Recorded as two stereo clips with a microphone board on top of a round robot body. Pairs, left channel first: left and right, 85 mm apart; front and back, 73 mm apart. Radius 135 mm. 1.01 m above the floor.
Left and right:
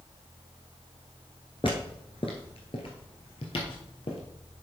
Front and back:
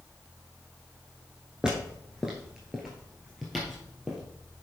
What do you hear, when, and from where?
1.6 s footsteps: 100° left, 1.0 m; by 4.2 s 90° left, 2 m